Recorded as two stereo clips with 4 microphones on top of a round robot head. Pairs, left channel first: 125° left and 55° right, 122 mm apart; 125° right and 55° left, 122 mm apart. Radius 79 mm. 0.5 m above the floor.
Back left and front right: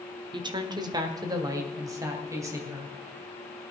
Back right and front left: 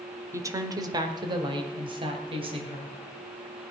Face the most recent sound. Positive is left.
turn(degrees=10)